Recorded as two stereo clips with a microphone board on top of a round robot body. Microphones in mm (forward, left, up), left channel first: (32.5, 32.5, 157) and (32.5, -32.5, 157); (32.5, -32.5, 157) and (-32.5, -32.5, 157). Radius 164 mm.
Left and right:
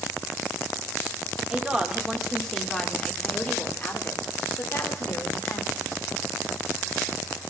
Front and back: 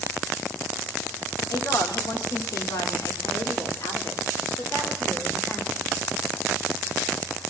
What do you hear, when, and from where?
1.5 s a woman speaking: 15° right, 2.5 m; by 6.0 s 60° left, 3.5 m